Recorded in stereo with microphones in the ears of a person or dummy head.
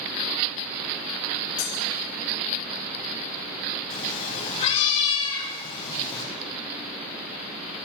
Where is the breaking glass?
40° left (ahead or behind), 5.5 m.